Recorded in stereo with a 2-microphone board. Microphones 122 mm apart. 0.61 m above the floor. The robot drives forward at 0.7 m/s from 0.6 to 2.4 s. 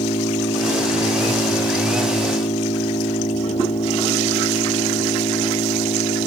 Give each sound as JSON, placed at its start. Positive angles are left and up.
{"t": 0.0, "sound": "an engine running", "side_deg": 65}